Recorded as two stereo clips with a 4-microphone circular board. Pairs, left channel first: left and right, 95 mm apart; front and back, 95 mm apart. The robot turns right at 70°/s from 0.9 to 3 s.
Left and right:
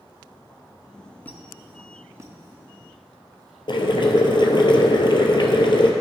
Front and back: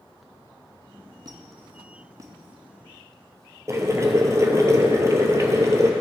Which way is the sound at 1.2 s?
155° left.